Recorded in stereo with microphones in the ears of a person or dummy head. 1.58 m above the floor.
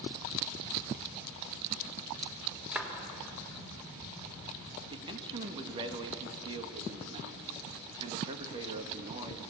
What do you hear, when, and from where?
2.7 s a clap: 5° right (ahead or behind), 3.5 m
4.9 s a man speaking: 25° right (ahead or behind), 1.8 m